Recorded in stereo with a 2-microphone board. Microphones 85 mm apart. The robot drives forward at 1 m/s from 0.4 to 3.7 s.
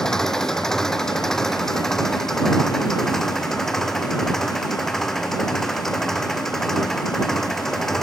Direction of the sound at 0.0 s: 5° left (ahead or behind).